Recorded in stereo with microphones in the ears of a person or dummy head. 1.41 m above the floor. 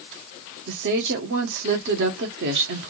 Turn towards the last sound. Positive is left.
turn(degrees=-65)  # may be behind; listen again after turning